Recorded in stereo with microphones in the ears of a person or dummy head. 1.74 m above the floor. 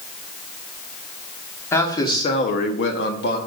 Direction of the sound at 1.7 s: 20° left (ahead or behind).